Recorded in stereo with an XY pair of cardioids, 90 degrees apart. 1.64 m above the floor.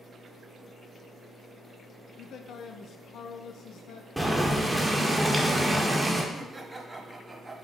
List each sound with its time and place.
2.2 s a man speaking: 65° left, 0.6 m
4.2 s boiling: straight ahead, 1.3 m
6.3 s laughter: 20° right, 1.2 m